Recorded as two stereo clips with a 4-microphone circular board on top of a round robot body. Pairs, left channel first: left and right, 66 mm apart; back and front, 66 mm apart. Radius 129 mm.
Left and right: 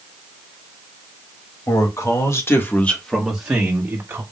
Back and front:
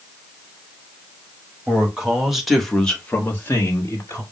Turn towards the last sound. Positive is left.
turn(degrees=-135)